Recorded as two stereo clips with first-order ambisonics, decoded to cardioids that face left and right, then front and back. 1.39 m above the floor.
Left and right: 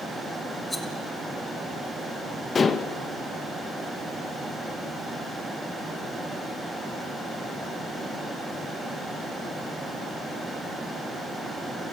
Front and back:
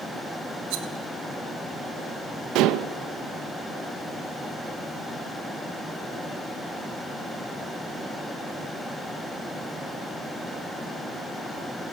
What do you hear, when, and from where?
0.7 s a rattle: straight behind, 1.6 m
2.5 s dishes clattering: 160° left, 0.8 m